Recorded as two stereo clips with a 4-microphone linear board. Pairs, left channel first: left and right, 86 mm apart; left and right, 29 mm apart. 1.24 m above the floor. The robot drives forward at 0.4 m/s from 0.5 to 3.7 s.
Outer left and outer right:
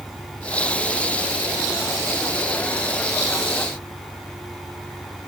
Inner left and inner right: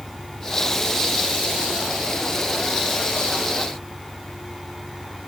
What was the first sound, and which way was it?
An engine running, 45° right (ahead or behind).